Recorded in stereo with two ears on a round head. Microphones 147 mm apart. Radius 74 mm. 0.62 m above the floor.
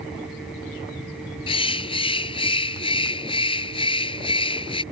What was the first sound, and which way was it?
A bird, 30° left (ahead or behind).